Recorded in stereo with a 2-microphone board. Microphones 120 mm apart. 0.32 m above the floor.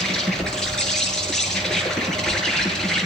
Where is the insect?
5° left (ahead or behind), 7.5 m.